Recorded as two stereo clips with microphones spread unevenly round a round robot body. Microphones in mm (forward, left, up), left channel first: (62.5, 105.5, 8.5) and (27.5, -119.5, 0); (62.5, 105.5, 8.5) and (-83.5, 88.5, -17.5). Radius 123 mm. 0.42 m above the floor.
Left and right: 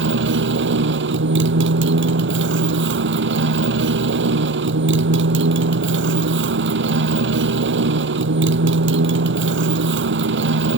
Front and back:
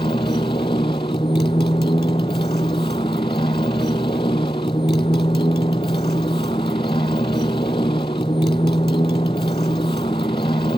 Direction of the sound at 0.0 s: 65° right.